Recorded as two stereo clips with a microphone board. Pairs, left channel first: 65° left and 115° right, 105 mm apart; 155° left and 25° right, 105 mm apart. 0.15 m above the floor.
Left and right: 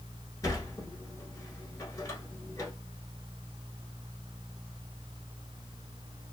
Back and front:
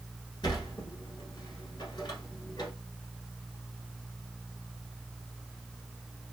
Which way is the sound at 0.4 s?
120° left.